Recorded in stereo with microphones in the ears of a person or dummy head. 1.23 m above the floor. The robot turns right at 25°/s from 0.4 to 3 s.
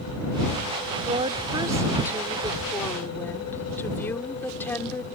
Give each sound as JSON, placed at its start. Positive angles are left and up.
{"t": 1.0, "sound": "a woman speaking", "azimuth_deg": -35}